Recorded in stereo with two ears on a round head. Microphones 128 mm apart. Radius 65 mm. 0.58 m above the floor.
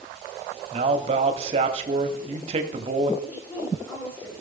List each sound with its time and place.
0.7 s a man speaking: 40° right (ahead or behind), 1.5 m
3.2 s a woman speaking: 20° left (ahead or behind), 8 m